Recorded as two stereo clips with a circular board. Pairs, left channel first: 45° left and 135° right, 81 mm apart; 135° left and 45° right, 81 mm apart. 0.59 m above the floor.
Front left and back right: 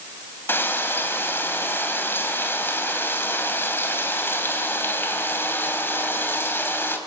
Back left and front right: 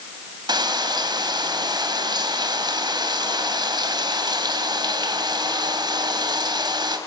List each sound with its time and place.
0.5 s frying: 15° right, 4 m